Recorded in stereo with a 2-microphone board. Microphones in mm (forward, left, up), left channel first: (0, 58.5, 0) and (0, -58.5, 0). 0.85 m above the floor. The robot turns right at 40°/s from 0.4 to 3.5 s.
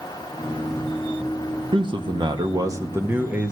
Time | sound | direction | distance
1.7 | a man speaking | 80° right | 1.3 m